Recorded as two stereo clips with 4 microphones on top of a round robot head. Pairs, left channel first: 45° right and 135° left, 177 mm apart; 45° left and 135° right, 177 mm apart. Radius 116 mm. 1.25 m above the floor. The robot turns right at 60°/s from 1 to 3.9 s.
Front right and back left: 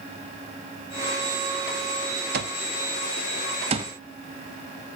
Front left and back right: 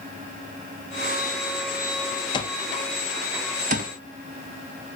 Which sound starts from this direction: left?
An alarm clock, at 2.3 s.